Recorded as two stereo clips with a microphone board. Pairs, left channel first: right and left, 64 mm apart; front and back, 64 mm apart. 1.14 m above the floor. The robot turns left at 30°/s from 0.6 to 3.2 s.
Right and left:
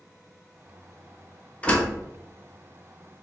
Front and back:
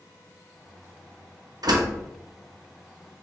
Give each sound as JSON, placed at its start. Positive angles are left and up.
{"t": 1.6, "sound": "a door slam", "azimuth_deg": -160, "distance_m": 0.8}